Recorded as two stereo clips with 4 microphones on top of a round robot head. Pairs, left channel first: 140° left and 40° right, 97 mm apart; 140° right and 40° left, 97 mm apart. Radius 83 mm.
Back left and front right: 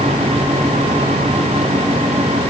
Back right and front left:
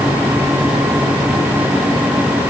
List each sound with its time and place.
Only background noise.